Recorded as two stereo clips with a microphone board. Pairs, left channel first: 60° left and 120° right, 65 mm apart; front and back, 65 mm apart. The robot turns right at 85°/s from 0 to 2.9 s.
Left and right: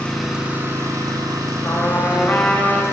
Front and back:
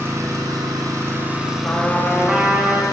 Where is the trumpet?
50° left, 0.7 m; by 2.8 s 150° left, 0.7 m.